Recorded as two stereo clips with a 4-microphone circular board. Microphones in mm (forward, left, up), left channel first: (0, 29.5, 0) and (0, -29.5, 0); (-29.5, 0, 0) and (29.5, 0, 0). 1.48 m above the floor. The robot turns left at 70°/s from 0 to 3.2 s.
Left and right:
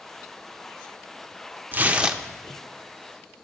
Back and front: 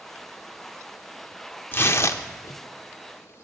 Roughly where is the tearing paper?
Behind right.